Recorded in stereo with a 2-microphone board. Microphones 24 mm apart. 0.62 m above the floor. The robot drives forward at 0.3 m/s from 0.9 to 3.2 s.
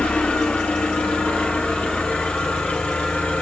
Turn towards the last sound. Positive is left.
turn(degrees=75)  # may be behind; listen again after turning